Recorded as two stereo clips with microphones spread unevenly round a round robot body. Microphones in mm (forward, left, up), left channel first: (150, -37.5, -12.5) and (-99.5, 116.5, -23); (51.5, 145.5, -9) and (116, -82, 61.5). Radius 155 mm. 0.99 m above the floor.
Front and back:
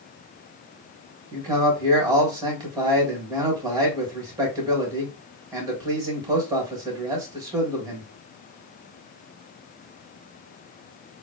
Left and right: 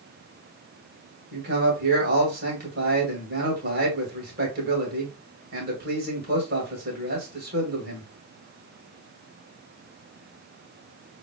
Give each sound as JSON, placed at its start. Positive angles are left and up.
{"t": 1.3, "sound": "a man speaking", "azimuth_deg": -135, "distance_m": 1.4}